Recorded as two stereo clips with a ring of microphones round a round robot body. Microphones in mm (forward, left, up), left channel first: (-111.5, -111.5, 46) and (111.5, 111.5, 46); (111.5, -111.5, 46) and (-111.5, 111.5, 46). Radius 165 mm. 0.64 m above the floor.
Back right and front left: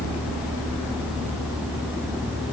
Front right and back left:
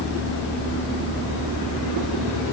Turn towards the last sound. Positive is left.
No sound to turn to.